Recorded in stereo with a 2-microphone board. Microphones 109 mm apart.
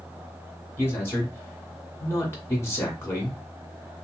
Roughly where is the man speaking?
Left.